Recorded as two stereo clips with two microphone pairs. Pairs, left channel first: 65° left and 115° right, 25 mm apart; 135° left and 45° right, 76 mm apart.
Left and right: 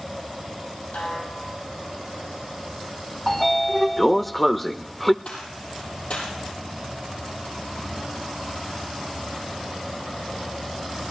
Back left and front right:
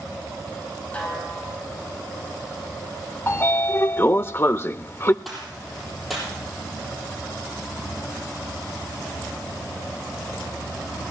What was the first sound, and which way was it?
A snare drum, 65° left.